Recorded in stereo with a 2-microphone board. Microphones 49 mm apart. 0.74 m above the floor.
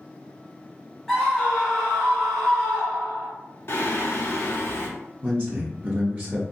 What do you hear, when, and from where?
1.1 s a scream: centre (ahead or behind), 1.1 m
3.7 s singing: 55° left (ahead or behind), 0.9 m
5.2 s a man speaking: 35° right (ahead or behind), 0.8 m